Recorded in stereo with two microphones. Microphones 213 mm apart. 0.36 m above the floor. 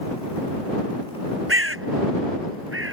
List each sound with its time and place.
1.5 s a bird: 80° right